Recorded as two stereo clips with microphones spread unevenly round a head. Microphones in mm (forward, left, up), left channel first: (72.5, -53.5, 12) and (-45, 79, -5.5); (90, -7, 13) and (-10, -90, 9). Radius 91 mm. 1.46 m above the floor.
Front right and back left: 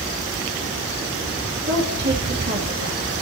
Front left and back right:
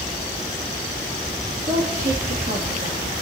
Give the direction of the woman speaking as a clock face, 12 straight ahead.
6 o'clock.